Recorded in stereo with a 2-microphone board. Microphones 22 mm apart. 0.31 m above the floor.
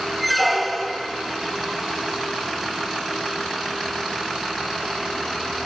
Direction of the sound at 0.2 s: 5° left (ahead or behind).